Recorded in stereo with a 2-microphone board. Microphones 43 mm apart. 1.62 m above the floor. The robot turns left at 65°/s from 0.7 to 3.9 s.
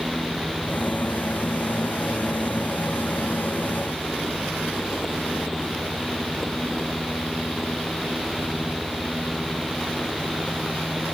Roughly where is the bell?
I don't hear a bell.